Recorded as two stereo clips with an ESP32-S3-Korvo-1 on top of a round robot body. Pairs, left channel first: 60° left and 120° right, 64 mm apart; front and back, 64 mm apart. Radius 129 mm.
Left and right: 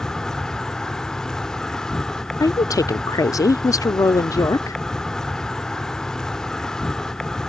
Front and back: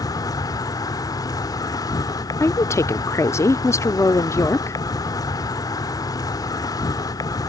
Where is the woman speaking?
40° left.